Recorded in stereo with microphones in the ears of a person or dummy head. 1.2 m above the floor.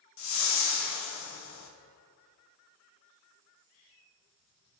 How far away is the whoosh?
About 1.0 m.